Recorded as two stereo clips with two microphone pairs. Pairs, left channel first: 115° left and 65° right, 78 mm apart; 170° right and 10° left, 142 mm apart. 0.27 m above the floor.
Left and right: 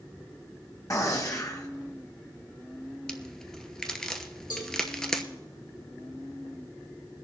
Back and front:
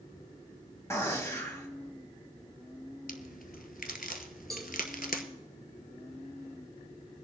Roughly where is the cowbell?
Left.